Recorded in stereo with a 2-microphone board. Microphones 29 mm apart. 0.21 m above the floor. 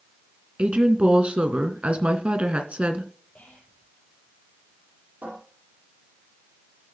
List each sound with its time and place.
0.6 s a woman speaking: 45° right (ahead or behind), 2.5 m
3.4 s whispering: 60° left (ahead or behind), 6 m
5.2 s a cupboard door: 80° right, 9 m